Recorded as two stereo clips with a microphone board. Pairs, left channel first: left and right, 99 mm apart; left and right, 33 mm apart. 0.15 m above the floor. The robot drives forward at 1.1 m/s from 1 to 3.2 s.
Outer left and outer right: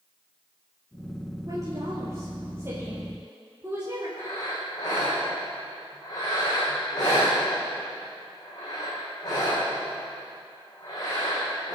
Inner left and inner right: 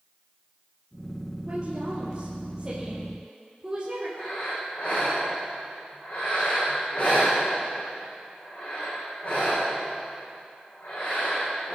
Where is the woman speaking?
35° right (ahead or behind), 3 m; by 4.1 s 20° right (ahead or behind), 4.5 m.